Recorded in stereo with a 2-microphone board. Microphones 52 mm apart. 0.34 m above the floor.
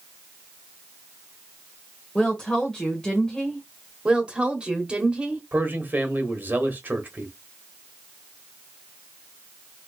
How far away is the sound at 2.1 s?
About 1.2 m.